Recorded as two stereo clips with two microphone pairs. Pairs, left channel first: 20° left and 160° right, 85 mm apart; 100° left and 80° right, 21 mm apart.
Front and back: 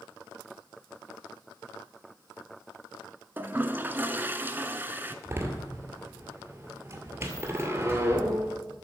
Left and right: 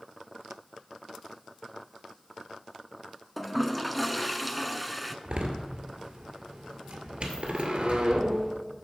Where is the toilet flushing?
165° right, 0.5 m.